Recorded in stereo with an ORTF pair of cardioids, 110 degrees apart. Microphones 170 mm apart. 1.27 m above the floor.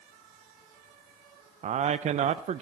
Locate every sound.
1.6 s a man speaking: 45° right, 0.6 m